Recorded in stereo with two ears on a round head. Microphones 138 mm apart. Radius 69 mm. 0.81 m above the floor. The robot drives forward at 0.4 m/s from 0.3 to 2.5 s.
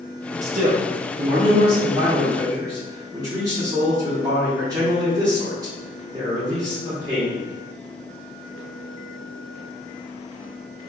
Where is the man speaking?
50° right (ahead or behind), 0.8 m; by 7.4 s 25° right (ahead or behind), 1.5 m.